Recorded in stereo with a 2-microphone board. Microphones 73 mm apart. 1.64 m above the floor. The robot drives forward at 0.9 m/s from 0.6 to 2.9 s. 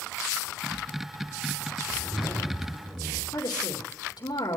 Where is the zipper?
70° right (ahead or behind), 7.5 m; by 3.2 s 60° right (ahead or behind), 8 m.